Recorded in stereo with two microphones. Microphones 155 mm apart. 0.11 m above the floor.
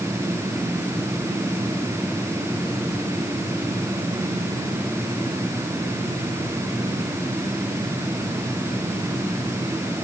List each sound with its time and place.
Only background noise.